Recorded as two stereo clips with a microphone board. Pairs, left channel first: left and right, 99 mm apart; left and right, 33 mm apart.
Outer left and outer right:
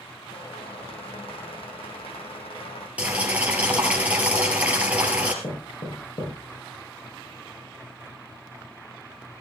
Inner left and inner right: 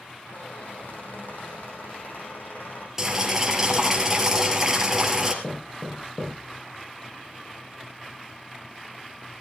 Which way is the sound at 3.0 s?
15° right (ahead or behind).